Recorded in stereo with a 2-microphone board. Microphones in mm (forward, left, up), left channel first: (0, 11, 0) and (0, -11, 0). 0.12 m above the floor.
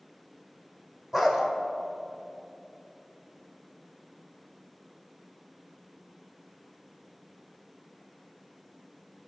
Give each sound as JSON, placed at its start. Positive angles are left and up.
{"t": 1.1, "sound": "a dog barking", "side_deg": -15, "distance_m": 1.4}